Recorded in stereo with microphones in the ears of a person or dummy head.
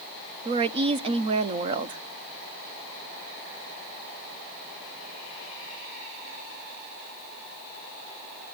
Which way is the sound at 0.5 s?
30° right (ahead or behind).